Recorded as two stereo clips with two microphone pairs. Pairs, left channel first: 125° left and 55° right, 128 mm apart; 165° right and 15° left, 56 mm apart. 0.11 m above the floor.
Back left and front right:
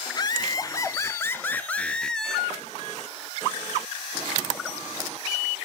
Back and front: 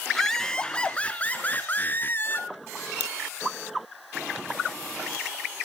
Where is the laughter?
115° left, 1.2 m; by 2.5 s 145° right, 1.4 m.